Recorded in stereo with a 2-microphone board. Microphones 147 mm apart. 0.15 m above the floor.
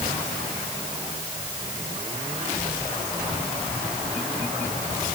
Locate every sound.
Only background noise.